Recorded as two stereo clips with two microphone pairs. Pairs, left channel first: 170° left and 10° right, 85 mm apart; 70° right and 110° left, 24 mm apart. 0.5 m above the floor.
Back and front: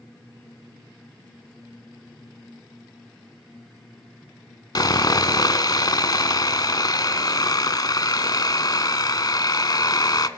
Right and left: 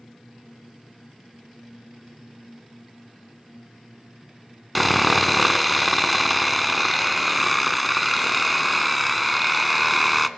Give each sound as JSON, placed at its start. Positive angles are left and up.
{"t": 4.8, "sound": "sawing", "azimuth_deg": -160, "distance_m": 0.6}